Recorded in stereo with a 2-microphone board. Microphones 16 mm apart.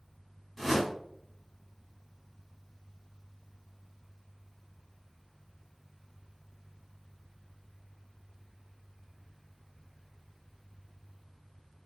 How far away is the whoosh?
About 1.8 m.